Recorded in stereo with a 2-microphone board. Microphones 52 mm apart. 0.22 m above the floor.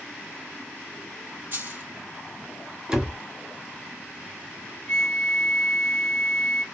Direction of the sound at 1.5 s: 45° right (ahead or behind).